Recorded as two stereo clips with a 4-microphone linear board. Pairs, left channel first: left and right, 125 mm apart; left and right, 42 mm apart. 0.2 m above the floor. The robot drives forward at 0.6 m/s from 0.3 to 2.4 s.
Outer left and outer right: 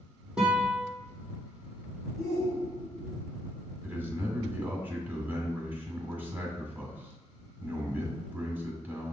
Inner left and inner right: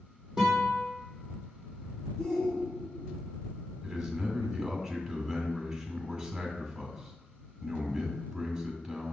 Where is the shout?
5° right (ahead or behind), 2 m.